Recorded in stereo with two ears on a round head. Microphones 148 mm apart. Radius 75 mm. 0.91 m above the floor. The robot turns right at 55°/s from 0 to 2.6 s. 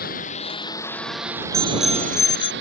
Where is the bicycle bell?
20° right; by 2.5 s 35° left.